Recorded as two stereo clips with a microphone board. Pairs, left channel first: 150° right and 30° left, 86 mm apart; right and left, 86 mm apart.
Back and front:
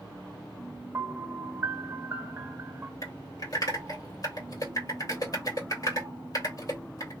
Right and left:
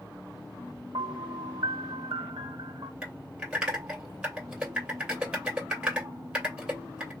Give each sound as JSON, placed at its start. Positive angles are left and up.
{"t": 0.9, "sound": "a piano", "azimuth_deg": 90, "distance_m": 0.8}
{"t": 3.0, "sound": "typing on a keyboard", "azimuth_deg": 170, "distance_m": 2.0}